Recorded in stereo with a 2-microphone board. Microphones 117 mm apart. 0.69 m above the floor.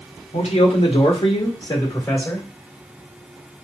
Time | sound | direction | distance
0.3 | a man speaking | 75° left (ahead or behind) | 1.7 m